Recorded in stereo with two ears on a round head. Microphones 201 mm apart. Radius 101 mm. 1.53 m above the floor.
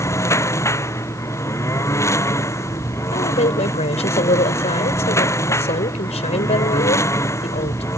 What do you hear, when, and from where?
0.0 s a lawn mower: 15° left (ahead or behind)
3.1 s a woman speaking: 30° left (ahead or behind)